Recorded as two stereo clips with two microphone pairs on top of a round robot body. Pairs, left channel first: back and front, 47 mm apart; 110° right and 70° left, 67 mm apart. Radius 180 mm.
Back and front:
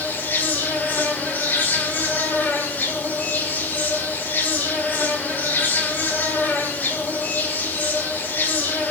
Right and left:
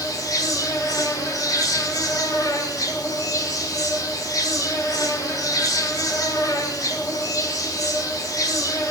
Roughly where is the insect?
Behind right.